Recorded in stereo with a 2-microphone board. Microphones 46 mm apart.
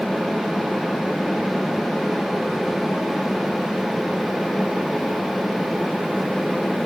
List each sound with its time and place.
Only background noise.